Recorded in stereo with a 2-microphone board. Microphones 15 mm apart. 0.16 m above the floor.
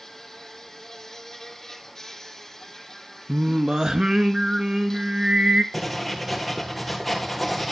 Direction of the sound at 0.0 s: 20° left (ahead or behind).